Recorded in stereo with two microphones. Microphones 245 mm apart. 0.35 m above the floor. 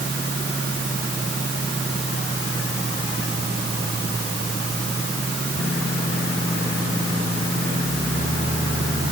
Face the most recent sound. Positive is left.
No sound to turn to.